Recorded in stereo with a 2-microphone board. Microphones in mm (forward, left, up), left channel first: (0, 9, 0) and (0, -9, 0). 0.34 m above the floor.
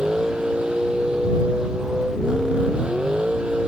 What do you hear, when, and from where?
0.0 s a vehicle: 60° right (ahead or behind)